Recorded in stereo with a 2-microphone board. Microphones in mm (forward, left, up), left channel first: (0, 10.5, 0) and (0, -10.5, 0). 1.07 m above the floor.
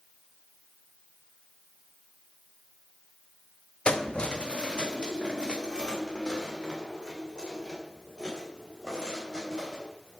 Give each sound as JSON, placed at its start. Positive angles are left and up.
{"t": 3.9, "sound": "keys jangling", "side_deg": 55, "distance_m": 0.8}